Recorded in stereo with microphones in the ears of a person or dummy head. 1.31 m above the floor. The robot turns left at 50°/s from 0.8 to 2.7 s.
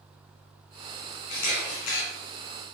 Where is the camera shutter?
130° left, 5.5 m; by 2.0 s 90° left, 5.5 m.